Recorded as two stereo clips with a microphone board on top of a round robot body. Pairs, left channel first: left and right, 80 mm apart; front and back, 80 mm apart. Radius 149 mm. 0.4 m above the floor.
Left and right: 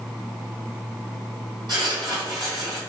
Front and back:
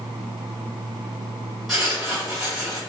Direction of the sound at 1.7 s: 95° right.